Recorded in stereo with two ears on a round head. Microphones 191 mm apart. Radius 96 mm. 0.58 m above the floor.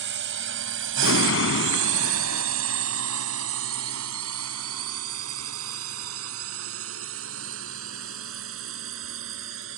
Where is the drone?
60° right (ahead or behind); by 9.8 s 65° right (ahead or behind).